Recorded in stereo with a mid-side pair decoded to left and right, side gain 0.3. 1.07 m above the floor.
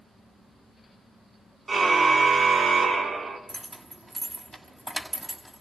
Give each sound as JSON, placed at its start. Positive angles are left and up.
{"t": 1.7, "sound": "a car horn", "azimuth_deg": -50, "distance_m": 6.5}
{"t": 3.5, "sound": "keys jangling", "azimuth_deg": -25, "distance_m": 5.5}